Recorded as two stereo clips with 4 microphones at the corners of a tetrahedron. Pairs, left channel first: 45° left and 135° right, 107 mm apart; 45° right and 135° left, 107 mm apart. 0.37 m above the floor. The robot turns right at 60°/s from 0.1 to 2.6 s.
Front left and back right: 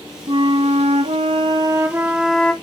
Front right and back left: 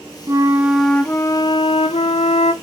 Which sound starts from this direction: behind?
A flute, at 0.3 s.